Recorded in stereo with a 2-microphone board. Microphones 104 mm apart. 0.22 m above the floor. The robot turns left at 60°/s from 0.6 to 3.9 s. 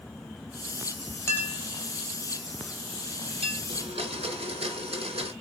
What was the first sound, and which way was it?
A clink, 25° left (ahead or behind).